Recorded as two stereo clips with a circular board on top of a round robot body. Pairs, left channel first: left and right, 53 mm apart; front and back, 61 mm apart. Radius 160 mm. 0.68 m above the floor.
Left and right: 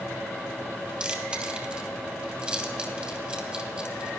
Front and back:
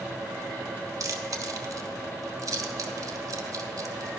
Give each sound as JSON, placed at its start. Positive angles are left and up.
{"t": 1.0, "sound": "chewing", "azimuth_deg": -160, "distance_m": 2.5}